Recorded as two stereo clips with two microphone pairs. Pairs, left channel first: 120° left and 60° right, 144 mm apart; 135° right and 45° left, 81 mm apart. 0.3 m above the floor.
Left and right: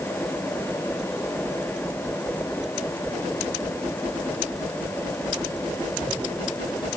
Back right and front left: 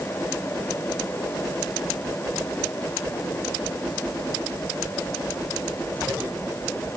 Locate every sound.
Only background noise.